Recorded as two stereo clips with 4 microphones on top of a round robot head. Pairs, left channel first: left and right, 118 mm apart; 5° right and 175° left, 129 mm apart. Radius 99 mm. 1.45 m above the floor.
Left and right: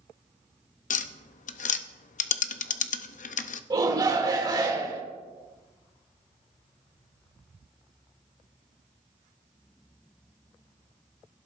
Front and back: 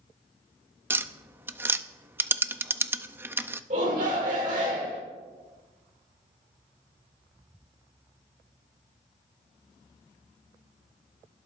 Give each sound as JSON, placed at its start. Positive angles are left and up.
{"t": 0.9, "sound": "tapping", "azimuth_deg": 100, "distance_m": 0.5}
{"t": 3.7, "sound": "a shout", "azimuth_deg": -145, "distance_m": 2.5}